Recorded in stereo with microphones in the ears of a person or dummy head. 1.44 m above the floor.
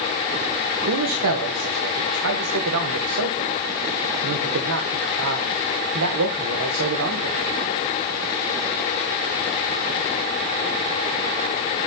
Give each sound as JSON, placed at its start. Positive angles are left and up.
{"t": 0.9, "sound": "a man speaking", "side_deg": -80, "distance_m": 1.0}